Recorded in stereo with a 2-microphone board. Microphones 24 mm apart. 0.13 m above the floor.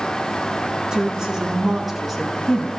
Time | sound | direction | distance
0.9 | a woman speaking | 35° right (ahead or behind) | 1.6 m